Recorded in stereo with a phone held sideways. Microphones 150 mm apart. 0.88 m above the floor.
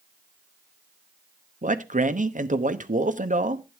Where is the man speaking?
65° right (ahead or behind), 0.9 m.